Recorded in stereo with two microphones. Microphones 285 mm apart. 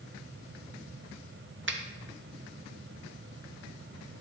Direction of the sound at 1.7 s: 45° right (ahead or behind).